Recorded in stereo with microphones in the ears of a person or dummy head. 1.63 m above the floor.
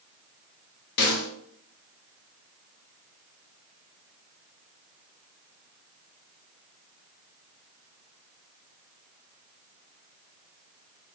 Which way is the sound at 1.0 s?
55° left (ahead or behind).